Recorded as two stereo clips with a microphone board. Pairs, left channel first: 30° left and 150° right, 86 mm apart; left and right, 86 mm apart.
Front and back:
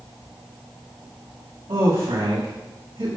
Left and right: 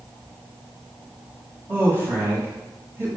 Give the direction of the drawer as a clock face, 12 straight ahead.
No drawer in this recording.